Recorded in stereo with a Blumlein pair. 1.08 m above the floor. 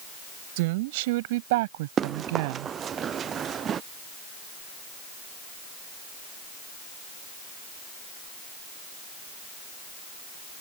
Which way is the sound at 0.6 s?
50° right.